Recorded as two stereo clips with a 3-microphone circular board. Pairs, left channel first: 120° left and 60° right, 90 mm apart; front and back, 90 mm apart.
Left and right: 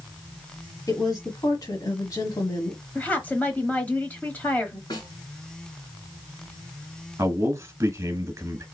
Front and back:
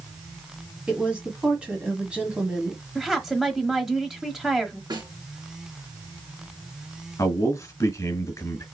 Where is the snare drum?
150° left, 2.5 m.